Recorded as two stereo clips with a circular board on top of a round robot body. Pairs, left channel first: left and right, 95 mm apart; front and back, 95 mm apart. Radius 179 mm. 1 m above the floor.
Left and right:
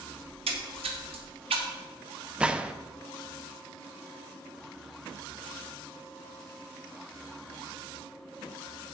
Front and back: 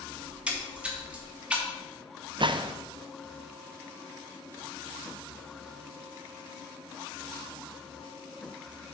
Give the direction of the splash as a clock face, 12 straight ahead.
3 o'clock.